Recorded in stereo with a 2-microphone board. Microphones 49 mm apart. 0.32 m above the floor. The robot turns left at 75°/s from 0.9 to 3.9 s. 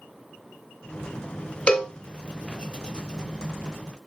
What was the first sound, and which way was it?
A cowbell, 25° left (ahead or behind).